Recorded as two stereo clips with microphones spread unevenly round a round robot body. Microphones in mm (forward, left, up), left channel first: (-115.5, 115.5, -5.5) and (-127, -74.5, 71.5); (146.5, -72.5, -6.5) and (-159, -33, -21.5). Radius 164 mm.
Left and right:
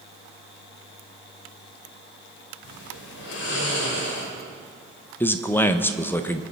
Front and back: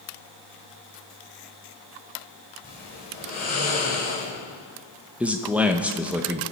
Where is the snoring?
60° left, 3 m.